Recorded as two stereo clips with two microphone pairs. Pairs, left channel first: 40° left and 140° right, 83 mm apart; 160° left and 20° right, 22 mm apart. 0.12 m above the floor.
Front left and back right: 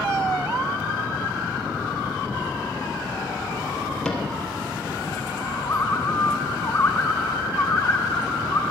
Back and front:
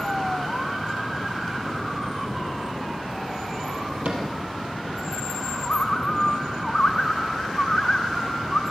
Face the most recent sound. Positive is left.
turn(degrees=100)